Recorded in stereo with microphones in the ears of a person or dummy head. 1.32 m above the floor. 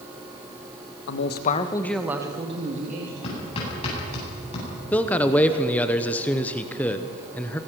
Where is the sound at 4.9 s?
10° left (ahead or behind), 0.9 m.